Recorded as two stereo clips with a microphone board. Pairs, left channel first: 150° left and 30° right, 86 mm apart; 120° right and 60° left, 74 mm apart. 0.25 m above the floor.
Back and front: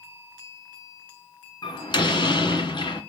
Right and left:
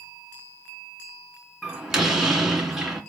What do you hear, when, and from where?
1.6 s a door slam: 140° left, 2.5 m